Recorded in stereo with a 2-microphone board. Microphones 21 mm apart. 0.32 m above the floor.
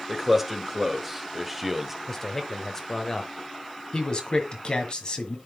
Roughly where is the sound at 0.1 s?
Centre.